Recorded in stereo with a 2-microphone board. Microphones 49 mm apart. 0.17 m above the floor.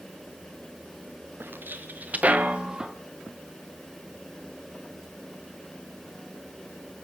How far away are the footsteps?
About 1.6 m.